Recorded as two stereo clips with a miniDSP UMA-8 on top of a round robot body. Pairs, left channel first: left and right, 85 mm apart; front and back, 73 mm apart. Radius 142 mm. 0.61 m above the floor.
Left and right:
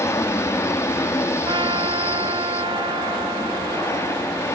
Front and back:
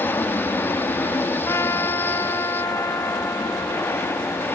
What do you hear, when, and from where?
0.0 s an aircraft: 50° left
1.4 s a trumpet: 55° right